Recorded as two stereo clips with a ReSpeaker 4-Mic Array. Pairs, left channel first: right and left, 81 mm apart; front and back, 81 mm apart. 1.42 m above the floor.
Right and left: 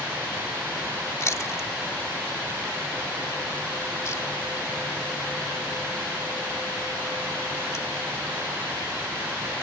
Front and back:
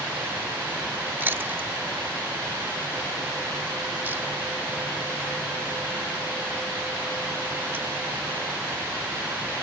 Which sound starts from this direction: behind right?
Chewing, at 1.2 s.